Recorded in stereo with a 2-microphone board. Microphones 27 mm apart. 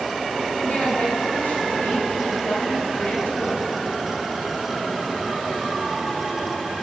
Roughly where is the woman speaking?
Left.